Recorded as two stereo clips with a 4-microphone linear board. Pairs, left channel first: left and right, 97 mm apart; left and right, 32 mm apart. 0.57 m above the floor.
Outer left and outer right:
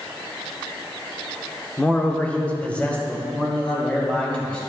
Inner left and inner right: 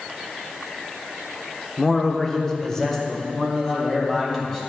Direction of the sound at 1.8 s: 15° left (ahead or behind).